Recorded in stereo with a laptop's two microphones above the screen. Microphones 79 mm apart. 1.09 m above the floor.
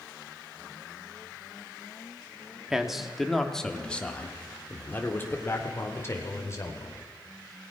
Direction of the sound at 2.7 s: 5° right (ahead or behind).